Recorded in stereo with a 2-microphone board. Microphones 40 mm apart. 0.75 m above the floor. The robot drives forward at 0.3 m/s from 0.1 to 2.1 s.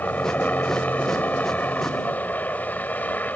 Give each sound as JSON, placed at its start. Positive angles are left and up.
{"t": 0.0, "sound": "a helicopter", "side_deg": 45}